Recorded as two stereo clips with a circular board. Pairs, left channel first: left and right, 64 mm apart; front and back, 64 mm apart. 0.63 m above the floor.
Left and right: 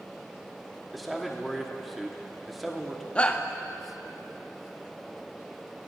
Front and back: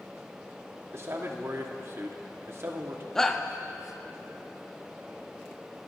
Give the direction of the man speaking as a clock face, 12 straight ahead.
6 o'clock.